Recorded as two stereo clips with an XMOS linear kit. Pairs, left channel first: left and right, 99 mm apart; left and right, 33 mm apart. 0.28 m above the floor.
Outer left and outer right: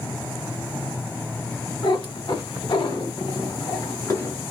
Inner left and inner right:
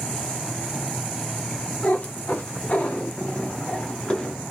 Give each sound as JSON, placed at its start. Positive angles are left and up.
{"t": 1.8, "sound": "a cat meowing", "side_deg": 55, "distance_m": 1.3}